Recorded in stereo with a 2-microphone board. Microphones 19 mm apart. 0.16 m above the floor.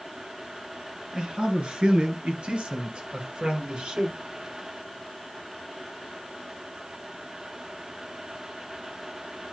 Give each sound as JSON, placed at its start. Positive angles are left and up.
{"t": 1.1, "sound": "a man speaking", "side_deg": -50, "distance_m": 2.5}